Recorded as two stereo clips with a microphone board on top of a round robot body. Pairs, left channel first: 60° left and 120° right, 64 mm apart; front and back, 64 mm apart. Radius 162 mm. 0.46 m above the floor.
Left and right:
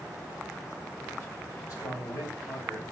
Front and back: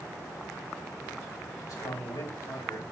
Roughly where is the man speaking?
Ahead.